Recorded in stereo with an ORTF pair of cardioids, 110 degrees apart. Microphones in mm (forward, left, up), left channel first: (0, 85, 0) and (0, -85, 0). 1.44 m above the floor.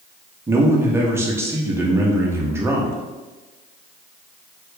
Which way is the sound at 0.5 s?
15° right.